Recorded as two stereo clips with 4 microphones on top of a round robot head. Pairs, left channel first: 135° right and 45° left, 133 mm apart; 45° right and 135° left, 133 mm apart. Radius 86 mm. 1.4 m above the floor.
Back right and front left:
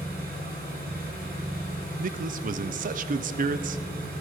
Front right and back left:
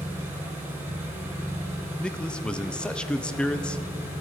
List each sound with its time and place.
0.0 s an engine running: 65° left, 3 m
2.0 s a man speaking: 40° left, 0.6 m